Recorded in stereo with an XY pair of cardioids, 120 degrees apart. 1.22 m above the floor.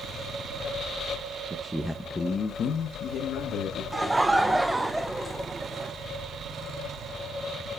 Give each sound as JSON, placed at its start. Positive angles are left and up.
{"t": 1.5, "sound": "a man speaking", "azimuth_deg": -30, "distance_m": 0.7}
{"t": 3.9, "sound": "laughter", "azimuth_deg": -10, "distance_m": 0.5}